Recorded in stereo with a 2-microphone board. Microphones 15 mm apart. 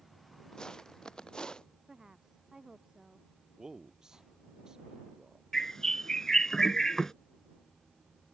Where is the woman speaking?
40° right (ahead or behind).